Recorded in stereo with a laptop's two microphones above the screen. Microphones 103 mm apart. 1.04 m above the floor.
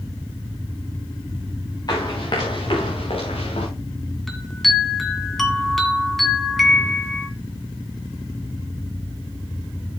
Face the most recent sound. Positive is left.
turn(degrees=0)  # may be behind; listen again after turning